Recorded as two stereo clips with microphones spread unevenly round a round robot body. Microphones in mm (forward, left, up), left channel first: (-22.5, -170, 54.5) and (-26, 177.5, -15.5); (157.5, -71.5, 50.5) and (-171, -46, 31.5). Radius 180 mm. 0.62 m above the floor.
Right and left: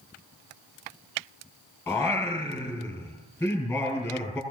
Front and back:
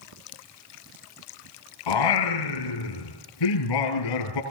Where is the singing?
5° right, 5 m.